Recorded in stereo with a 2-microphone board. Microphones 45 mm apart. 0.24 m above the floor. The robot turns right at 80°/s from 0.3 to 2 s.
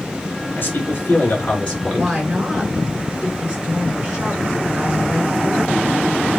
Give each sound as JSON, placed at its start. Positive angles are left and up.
{"t": 0.6, "sound": "a man speaking", "azimuth_deg": 65, "distance_m": 3.0}
{"t": 1.9, "sound": "a woman speaking", "side_deg": -10, "distance_m": 3.5}